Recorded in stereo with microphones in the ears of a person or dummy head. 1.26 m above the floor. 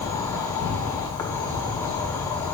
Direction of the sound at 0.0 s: 15° left (ahead or behind).